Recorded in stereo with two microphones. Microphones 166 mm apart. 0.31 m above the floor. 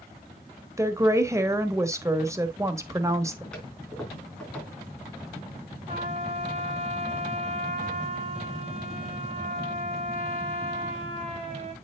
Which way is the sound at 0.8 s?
20° right (ahead or behind).